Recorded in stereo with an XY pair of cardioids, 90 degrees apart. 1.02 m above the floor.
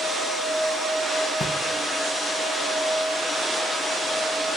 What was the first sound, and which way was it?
A drawer, 60° left.